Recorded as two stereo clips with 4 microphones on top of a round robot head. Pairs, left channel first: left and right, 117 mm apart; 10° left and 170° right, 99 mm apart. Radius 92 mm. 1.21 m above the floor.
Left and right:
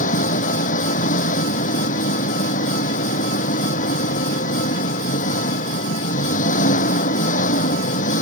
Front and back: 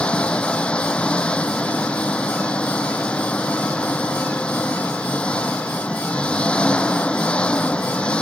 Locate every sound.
0.0 s an engine running: 90° left